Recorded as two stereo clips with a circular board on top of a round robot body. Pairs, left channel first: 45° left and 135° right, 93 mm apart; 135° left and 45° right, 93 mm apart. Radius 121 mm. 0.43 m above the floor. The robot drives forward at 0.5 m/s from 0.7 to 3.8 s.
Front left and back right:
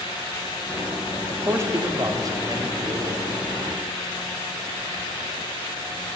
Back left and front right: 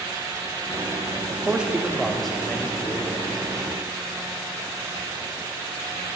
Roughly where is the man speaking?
Right.